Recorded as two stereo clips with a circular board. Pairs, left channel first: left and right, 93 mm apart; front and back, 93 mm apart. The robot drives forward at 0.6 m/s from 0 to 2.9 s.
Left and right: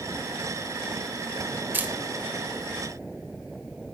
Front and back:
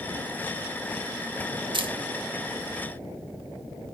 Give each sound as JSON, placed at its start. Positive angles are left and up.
{"t": 1.7, "sound": "a camera shutter", "azimuth_deg": -160, "distance_m": 0.6}